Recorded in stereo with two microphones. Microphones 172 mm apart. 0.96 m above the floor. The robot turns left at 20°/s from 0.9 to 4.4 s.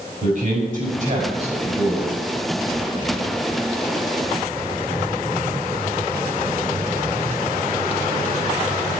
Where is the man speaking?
60° right (ahead or behind), 5.5 m; by 2.1 s 35° right (ahead or behind), 5.5 m.